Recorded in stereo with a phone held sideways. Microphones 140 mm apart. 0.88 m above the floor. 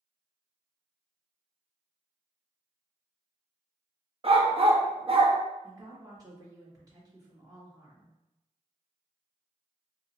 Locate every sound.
4.2 s a dog barking: 45° right (ahead or behind), 0.6 m
5.6 s a woman speaking: 30° right (ahead or behind), 1.7 m